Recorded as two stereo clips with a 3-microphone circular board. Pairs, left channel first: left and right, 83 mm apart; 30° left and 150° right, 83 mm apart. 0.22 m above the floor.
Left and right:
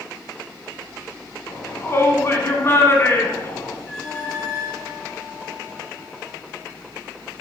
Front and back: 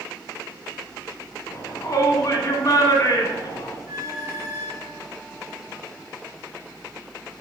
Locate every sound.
1.5 s a shout: 45° left, 2.5 m
3.9 s a squeak: 175° left, 3 m